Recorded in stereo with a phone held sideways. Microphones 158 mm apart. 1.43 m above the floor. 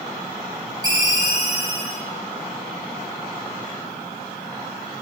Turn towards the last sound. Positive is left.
turn(degrees=-25)  # may be behind; listen again after turning